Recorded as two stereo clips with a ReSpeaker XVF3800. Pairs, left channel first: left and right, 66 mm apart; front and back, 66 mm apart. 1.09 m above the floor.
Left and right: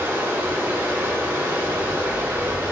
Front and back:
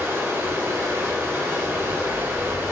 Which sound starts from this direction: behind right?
Running water, at 0.0 s.